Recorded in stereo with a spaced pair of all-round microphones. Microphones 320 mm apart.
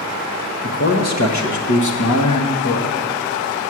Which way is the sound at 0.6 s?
40° left (ahead or behind).